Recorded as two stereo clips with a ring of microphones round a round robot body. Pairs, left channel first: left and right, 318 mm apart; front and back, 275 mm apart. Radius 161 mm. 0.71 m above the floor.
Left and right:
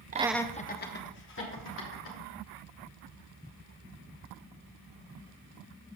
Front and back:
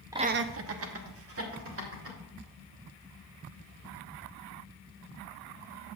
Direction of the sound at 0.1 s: 115° right.